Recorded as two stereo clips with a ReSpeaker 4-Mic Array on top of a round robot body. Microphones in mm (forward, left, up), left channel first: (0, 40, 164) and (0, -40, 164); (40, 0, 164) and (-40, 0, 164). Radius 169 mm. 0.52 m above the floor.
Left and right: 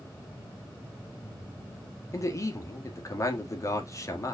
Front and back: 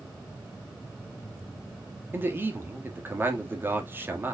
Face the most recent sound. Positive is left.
turn(degrees=125)